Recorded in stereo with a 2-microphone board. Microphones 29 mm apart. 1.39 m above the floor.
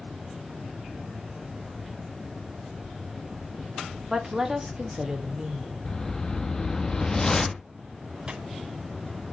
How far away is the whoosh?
About 0.8 m.